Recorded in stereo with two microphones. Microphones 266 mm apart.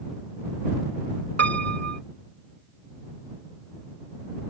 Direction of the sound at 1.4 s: 65° right (ahead or behind).